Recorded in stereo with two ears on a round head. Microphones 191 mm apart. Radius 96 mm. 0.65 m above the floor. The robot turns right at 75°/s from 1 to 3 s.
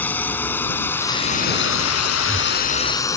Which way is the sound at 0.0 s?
10° left (ahead or behind).